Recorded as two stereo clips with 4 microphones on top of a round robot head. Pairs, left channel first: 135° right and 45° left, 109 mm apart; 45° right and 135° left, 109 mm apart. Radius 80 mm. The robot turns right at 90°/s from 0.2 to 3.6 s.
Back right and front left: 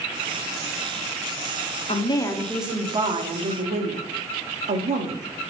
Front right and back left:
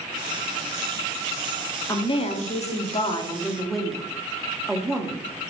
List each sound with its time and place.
1.9 s a woman speaking: 105° right, 1.5 m; by 5.2 s 50° left, 1.5 m